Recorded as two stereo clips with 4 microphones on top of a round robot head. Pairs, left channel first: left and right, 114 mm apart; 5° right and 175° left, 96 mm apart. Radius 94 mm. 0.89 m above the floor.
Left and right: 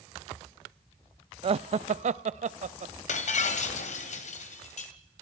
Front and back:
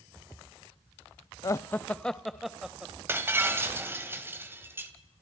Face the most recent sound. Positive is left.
turn(degrees=105)